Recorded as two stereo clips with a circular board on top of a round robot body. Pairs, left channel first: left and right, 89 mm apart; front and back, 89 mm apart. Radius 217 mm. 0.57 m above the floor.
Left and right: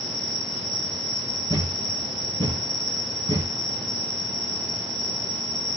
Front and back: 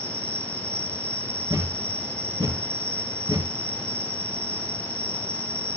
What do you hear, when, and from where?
0.0 s an insect: 120° right, 5 m
1.5 s a thud: 135° right, 3.5 m